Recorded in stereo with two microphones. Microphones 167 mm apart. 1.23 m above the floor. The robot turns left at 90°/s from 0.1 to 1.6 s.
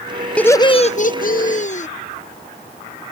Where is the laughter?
170° left; by 1.9 s 60° left.